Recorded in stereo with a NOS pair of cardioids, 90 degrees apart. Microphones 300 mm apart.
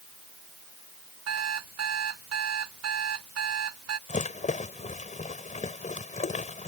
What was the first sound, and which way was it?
An alarm clock, 55° right.